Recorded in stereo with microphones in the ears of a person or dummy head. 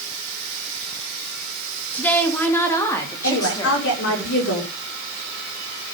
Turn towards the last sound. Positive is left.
turn(degrees=70)  # may be behind; listen again after turning